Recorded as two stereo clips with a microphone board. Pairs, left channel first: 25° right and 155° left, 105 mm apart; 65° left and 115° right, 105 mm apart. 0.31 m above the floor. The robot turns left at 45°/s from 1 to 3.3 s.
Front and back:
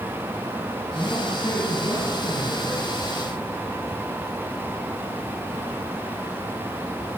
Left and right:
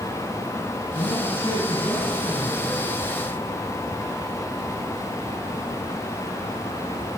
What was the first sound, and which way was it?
A man speaking, 50° left.